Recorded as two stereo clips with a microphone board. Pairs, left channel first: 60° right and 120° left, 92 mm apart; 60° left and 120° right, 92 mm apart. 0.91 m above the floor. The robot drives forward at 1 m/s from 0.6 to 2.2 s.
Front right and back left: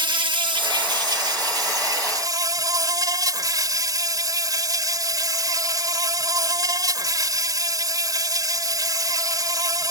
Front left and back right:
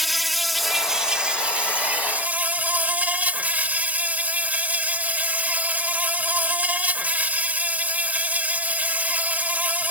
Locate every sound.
0.0 s an insect: 150° left; by 9.9 s 170° left